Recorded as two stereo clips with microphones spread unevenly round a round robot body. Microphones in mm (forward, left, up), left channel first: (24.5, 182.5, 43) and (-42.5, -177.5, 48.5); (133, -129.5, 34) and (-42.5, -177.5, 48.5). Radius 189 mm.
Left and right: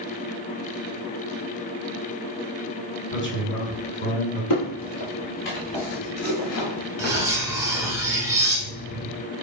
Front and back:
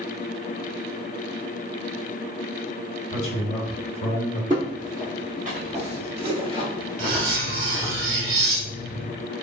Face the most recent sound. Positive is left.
turn(degrees=175)